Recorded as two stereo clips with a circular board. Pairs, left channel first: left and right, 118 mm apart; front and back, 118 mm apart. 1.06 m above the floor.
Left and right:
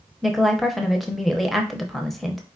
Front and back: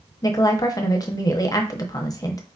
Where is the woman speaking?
5° left, 0.8 m.